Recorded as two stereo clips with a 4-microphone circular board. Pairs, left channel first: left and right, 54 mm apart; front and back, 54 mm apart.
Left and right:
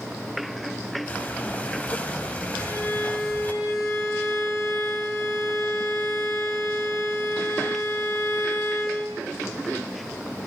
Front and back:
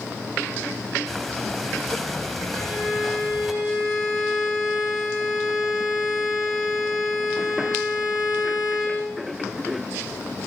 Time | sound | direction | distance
1.1 | breathing | 85° left | 1.3 m
2.5 | a violin | 100° left | 5 m